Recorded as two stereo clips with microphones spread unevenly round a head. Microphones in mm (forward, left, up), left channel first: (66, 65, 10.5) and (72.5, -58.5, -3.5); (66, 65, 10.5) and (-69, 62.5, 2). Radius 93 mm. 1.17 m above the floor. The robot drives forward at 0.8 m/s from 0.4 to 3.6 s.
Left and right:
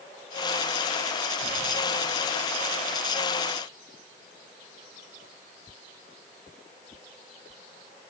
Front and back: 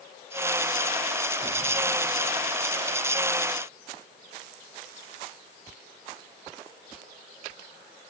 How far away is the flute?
No flute in this recording.